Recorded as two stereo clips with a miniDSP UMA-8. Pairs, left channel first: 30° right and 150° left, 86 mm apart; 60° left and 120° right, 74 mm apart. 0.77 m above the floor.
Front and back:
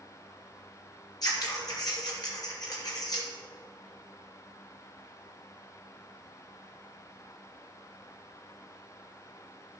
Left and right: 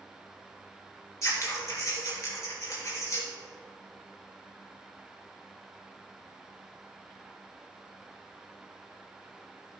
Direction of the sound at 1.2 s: 10° left.